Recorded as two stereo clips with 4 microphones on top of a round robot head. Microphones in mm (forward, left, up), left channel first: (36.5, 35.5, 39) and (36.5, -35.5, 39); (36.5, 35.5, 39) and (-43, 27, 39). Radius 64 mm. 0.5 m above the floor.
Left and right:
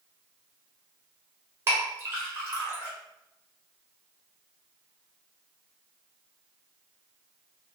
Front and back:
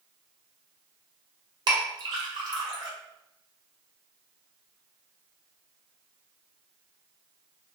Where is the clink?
145° right, 1.5 m.